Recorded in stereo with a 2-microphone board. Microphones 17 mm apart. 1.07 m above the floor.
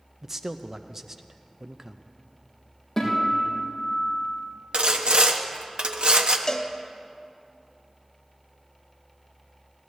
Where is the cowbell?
35° left (ahead or behind), 0.8 m.